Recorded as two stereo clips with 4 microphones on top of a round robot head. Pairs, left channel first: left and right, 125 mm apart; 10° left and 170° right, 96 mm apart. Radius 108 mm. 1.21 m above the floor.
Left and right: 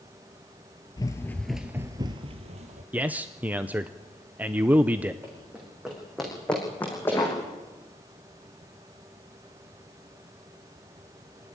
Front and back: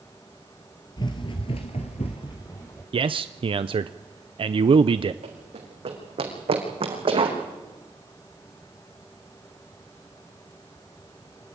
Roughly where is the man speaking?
Behind.